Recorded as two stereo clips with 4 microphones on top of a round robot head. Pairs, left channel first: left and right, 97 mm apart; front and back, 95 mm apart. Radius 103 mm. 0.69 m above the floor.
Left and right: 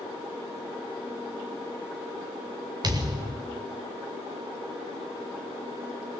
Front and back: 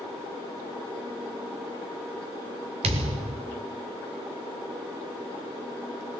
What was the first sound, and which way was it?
A thud, 150° right.